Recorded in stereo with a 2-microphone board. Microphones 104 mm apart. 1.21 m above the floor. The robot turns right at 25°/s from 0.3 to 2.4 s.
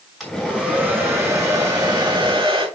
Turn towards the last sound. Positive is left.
turn(degrees=-125)